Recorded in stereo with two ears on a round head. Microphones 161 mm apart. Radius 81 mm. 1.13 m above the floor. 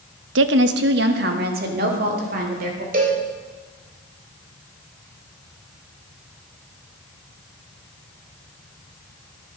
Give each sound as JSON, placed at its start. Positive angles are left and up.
{"t": 0.3, "sound": "a woman speaking", "side_deg": -65, "distance_m": 0.8}
{"t": 2.9, "sound": "a cowbell", "side_deg": -45, "distance_m": 3.0}